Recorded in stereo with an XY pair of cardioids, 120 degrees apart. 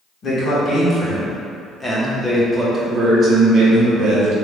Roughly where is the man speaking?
Ahead left.